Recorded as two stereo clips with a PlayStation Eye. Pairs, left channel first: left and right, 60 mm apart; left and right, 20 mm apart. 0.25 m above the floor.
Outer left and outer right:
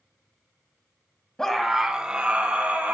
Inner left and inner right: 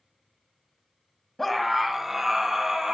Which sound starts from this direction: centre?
A scream, at 1.4 s.